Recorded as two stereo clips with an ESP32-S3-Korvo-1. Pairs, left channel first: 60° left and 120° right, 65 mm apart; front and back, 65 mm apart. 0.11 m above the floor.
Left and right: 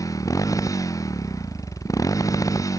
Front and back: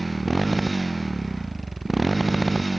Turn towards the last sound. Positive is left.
turn(degrees=90)